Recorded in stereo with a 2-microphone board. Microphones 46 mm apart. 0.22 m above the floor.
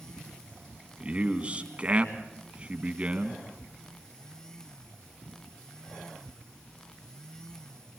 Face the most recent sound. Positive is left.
turn(degrees=-25)  # may be behind; listen again after turning